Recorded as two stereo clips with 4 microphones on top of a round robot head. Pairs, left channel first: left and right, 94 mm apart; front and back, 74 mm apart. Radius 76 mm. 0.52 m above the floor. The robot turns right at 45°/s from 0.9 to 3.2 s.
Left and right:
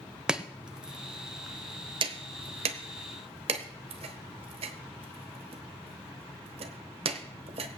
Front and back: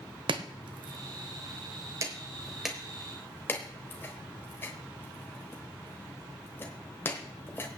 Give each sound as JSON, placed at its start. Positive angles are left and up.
{"t": 0.3, "sound": "chopping", "azimuth_deg": -170, "distance_m": 0.9}